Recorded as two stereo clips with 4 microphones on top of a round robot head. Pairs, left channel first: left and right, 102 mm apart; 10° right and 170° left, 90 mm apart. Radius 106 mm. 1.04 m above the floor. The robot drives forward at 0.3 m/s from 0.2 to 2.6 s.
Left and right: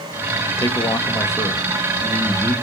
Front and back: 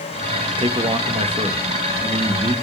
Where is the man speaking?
150° left, 1.2 m; by 2.5 s 160° left, 1.7 m.